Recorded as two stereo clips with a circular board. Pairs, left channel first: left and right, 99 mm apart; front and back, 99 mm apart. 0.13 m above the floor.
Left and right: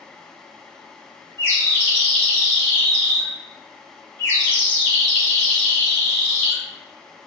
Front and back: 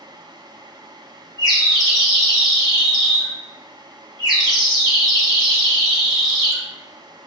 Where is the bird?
155° left, 1.7 m.